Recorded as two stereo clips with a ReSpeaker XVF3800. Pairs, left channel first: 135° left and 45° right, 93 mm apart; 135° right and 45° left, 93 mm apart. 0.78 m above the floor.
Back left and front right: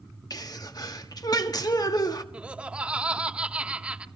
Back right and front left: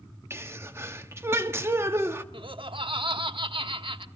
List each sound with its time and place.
0.3 s a sneeze: 100° left, 1.5 m
2.3 s laughter: 30° left, 1.2 m